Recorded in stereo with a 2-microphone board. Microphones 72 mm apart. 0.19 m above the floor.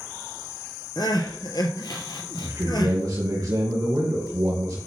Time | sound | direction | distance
1.0 | crying | 70° left (ahead or behind) | 1.2 m
2.4 | a man speaking | 50° right (ahead or behind) | 2.5 m